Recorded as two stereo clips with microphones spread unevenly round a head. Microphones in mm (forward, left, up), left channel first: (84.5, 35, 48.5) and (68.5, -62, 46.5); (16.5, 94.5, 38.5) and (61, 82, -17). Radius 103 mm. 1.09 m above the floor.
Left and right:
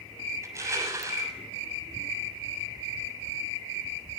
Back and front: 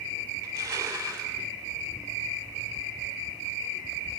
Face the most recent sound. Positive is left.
turn(degrees=-40)